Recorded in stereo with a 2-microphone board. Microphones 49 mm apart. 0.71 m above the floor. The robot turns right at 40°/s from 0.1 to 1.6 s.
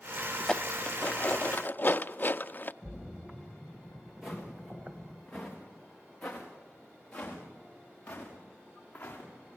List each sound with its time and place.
0.4 s dishes clattering: 15° left (ahead or behind), 0.5 m; by 2.7 s 40° left (ahead or behind), 0.5 m
2.8 s a splash: 20° right (ahead or behind), 1.9 m
4.2 s footsteps: 5° right (ahead or behind), 4.5 m; by 9.3 s 30° left (ahead or behind), 6 m